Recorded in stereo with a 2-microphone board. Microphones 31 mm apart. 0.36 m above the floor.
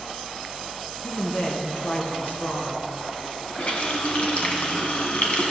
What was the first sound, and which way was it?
A woman speaking, 65° left (ahead or behind).